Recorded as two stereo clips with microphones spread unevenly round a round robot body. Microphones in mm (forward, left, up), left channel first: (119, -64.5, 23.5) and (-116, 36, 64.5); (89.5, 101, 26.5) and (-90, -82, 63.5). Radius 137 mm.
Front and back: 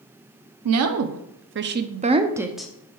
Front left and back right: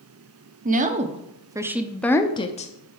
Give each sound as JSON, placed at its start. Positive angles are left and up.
{"t": 0.7, "sound": "a woman speaking", "azimuth_deg": 165, "distance_m": 1.0}